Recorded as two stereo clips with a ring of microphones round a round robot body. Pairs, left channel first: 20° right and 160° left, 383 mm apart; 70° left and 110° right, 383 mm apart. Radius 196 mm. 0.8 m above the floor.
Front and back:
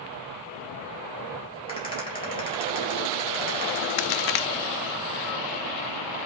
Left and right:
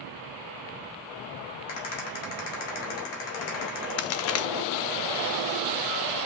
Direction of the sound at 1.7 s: 55° left.